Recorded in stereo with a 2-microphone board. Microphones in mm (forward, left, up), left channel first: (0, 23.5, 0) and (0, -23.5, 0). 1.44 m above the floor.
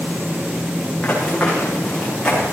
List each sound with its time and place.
1.0 s running footsteps: 20° left (ahead or behind), 7.5 m; by 2.4 s 15° left (ahead or behind), 9 m